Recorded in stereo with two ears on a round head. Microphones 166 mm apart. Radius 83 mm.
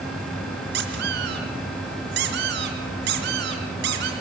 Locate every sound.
0.7 s a squeak: 65° right (ahead or behind), 4 m